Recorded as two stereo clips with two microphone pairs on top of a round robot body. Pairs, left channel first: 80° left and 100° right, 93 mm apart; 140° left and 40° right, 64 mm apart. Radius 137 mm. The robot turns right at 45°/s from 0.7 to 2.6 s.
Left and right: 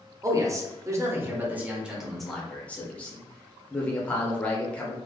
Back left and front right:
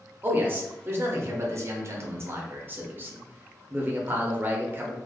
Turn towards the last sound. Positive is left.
turn(degrees=0)